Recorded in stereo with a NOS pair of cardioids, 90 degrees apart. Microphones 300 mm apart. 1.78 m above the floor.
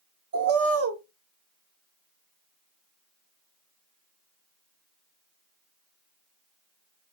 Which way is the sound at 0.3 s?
50° right.